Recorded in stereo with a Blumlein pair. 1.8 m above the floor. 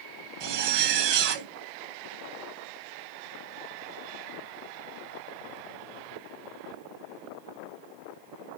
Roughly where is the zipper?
Ahead right.